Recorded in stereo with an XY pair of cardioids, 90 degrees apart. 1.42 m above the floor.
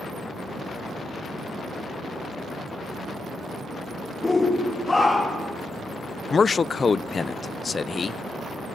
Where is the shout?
25° left, 2.5 m; by 5.5 s 35° left, 4 m.